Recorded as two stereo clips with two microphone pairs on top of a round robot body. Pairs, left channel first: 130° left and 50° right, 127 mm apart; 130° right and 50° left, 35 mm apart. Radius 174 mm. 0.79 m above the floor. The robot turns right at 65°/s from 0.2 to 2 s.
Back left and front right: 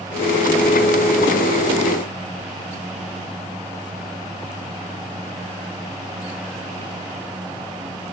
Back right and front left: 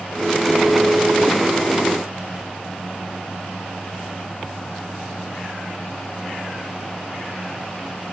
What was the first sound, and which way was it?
Only background noise.